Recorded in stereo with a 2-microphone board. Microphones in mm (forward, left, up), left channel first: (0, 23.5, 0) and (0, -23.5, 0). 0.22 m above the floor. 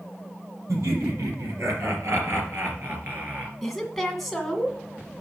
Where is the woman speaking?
Centre (ahead or behind), 1.8 m.